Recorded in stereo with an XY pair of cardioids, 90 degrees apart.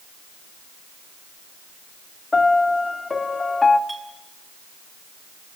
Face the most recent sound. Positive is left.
turn(degrees=-20)